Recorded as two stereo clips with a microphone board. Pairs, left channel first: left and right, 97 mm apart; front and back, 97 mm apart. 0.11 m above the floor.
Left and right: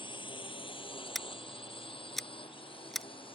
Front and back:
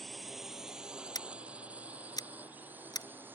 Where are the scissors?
Straight ahead.